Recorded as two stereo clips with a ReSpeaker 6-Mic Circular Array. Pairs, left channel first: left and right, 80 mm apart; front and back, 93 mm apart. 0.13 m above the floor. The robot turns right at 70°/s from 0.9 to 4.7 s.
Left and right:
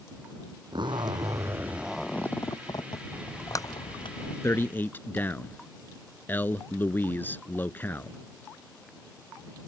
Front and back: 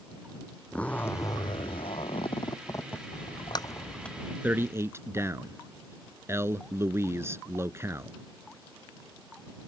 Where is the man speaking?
120° left; by 8.2 s 140° left.